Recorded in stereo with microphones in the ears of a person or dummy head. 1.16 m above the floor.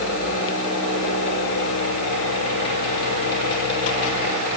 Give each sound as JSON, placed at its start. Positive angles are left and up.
{"t": 0.0, "sound": "a fan", "side_deg": 65, "distance_m": 5.5}